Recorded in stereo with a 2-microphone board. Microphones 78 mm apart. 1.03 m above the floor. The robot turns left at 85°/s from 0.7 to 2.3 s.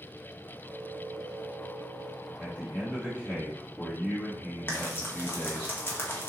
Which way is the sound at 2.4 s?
20° left (ahead or behind).